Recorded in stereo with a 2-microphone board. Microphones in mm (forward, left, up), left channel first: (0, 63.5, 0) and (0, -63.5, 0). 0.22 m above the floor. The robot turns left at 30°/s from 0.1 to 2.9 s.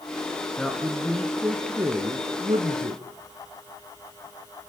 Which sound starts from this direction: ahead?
A man speaking, at 0.6 s.